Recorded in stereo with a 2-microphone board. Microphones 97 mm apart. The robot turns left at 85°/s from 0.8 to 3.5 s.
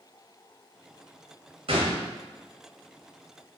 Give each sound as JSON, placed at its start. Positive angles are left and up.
{"t": 1.7, "sound": "a gunshot", "azimuth_deg": -75, "distance_m": 2.0}